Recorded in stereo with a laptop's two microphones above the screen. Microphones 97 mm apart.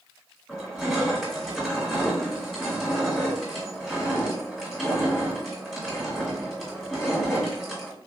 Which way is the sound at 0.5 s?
5° right (ahead or behind).